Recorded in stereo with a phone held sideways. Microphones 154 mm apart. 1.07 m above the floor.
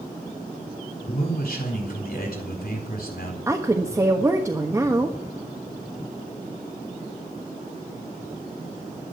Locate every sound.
1.1 s a man speaking: 70° left (ahead or behind), 3.5 m
3.5 s a woman speaking: 20° right (ahead or behind), 1.3 m